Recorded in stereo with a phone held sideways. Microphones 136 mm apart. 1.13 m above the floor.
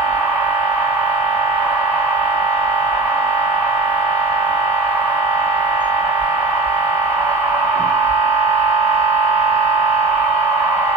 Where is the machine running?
15° left (ahead or behind), 1.5 m.